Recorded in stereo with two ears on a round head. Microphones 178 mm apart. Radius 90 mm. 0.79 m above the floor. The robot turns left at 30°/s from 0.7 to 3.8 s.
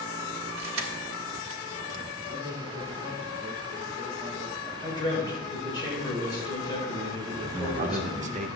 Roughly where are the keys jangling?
Right.